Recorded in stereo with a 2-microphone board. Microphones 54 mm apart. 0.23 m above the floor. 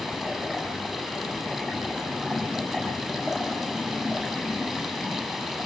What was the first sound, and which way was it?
Running water, 10° right (ahead or behind).